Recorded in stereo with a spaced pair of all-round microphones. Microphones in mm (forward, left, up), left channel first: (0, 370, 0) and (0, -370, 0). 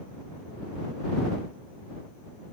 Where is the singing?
No singing in this recording.